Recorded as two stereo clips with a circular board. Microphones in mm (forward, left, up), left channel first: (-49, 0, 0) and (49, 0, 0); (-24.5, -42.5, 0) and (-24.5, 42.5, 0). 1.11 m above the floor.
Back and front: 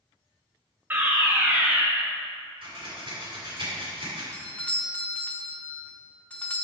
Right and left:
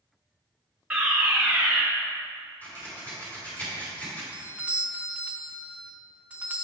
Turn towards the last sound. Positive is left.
turn(degrees=135)